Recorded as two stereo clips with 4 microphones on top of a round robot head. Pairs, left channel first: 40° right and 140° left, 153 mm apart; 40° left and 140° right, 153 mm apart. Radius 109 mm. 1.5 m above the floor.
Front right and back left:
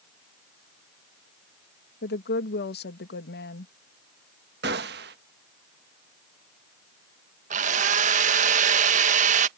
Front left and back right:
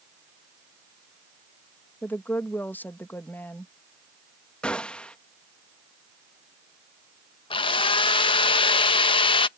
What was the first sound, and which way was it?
A woman speaking, 40° right.